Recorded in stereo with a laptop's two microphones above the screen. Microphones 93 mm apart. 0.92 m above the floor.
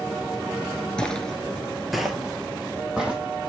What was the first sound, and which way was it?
Footsteps, 10° left (ahead or behind).